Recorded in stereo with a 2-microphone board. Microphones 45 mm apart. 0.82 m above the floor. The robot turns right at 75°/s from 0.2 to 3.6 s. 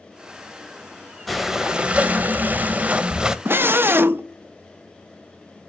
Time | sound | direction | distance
1.3 | breathing | straight behind | 0.7 m
3.5 | a scream | 50° right (ahead or behind) | 0.7 m